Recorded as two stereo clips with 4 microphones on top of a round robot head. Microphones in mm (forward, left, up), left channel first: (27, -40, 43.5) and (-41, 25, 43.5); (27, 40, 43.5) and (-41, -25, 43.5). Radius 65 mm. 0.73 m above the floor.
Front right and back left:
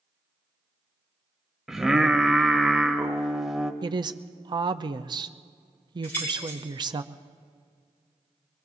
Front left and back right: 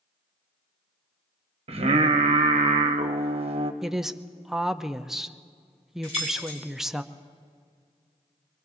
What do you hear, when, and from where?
1.7 s singing: 140° right, 1.1 m
3.8 s a woman speaking: 140° left, 0.7 m
6.0 s keys jangling: 30° left, 7 m